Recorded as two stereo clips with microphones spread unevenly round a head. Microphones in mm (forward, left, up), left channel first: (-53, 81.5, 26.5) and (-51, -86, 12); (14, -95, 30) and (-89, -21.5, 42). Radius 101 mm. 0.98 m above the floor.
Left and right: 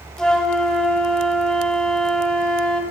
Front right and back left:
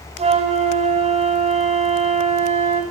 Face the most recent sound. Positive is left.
turn(degrees=175)